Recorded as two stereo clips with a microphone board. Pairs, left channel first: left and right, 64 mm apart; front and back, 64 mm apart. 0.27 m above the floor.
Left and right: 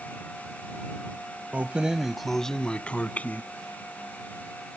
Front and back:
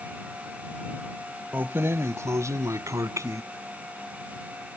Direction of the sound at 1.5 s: 140° right.